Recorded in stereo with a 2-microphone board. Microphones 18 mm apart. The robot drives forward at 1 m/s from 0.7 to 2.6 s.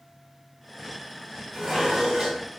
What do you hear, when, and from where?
1.5 s dishes clattering: 25° right (ahead or behind), 4 m; by 2.5 s 35° right (ahead or behind), 3 m